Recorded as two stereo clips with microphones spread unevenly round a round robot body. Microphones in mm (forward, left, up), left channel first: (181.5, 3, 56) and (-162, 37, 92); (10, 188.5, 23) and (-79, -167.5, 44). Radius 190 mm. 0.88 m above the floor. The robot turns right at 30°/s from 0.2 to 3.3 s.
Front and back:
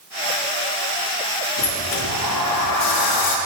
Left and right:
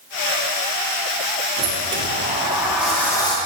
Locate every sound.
1.6 s a sliding door: 55° right, 1.6 m; by 3.4 s straight ahead, 1.6 m